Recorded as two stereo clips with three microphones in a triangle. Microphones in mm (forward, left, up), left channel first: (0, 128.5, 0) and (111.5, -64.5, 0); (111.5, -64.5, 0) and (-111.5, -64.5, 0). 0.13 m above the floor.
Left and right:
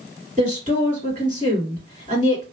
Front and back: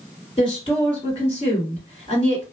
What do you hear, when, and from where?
0.4 s a woman speaking: 45° right, 2.0 m